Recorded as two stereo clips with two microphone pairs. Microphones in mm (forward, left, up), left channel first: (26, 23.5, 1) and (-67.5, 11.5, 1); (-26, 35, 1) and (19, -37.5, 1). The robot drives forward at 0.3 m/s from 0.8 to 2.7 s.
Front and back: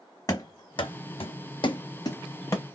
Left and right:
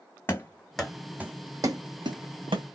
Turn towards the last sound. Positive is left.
turn(degrees=-55)